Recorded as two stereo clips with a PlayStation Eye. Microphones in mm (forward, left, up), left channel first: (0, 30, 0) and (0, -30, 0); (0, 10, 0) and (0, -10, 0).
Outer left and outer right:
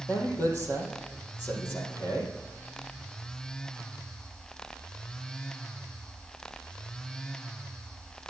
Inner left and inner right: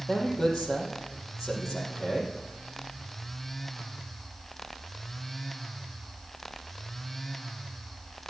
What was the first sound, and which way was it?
A man speaking, 35° left (ahead or behind).